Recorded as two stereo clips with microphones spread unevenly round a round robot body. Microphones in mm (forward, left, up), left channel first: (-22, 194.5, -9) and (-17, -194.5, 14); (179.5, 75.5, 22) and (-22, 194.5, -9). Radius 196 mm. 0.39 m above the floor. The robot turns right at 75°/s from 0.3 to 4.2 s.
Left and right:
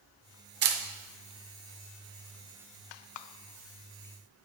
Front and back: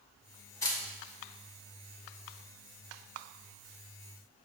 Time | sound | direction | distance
0.6 | a camera shutter | 105° right | 0.5 m